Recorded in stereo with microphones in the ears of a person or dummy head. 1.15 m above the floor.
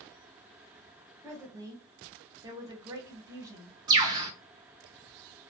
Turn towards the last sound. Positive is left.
turn(degrees=-20)  # may be behind; listen again after turning